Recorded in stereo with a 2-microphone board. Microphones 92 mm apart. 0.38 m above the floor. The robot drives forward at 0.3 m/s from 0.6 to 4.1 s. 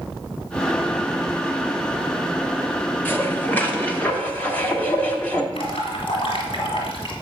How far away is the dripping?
About 2.5 m.